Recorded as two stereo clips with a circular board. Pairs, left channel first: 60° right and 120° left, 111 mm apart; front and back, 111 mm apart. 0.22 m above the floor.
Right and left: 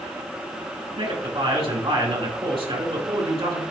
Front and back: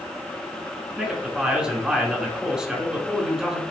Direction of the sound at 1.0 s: 100° left.